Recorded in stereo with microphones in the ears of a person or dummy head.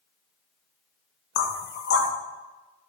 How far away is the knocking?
About 0.5 m.